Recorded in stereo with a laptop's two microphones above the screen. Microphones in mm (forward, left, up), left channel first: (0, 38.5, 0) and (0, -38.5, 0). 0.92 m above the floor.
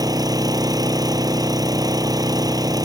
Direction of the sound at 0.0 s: 55° right (ahead or behind).